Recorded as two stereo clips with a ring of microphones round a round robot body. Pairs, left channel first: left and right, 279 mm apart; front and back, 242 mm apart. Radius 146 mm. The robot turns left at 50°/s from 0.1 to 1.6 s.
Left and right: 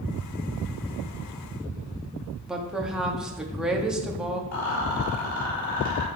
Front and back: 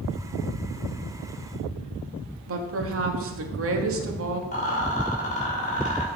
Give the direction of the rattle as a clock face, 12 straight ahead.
10 o'clock.